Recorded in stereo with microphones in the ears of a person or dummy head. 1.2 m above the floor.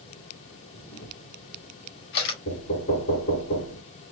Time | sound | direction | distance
0.7 | a camera shutter | 60° left (ahead or behind) | 1.9 m
2.5 | knocking | 55° left (ahead or behind) | 3 m